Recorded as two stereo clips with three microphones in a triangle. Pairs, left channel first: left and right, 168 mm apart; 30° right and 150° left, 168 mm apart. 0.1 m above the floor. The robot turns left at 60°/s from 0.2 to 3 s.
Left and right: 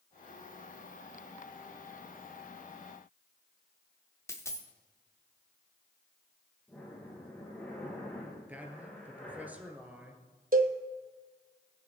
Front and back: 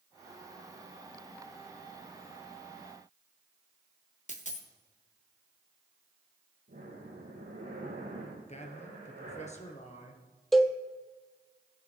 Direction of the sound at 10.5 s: 120° right.